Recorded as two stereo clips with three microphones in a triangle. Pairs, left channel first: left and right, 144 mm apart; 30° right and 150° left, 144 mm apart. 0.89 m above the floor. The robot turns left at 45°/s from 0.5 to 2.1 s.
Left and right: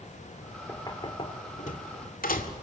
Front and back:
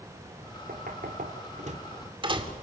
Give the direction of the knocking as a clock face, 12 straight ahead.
7 o'clock.